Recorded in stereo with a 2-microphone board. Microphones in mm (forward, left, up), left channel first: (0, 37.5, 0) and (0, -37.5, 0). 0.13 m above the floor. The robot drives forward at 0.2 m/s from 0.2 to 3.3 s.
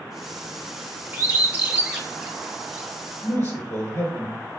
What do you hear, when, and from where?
1.1 s a bird: 25° right (ahead or behind), 0.7 m; by 2.9 s 15° right (ahead or behind), 1.0 m
3.2 s a man speaking: 45° left (ahead or behind), 1.6 m